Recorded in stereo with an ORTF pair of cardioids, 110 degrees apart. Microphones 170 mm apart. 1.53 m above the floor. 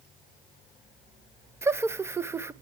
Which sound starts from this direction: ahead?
Laughter, at 1.6 s.